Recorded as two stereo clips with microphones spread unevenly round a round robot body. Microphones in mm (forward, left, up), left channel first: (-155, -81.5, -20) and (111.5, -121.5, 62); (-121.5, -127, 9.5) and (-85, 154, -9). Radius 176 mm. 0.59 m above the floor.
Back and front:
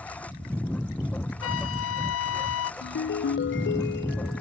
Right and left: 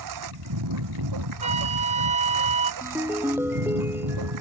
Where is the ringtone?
160° left.